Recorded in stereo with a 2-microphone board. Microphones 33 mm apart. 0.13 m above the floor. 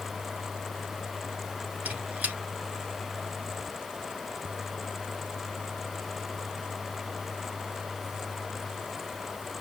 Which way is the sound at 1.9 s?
45° right (ahead or behind).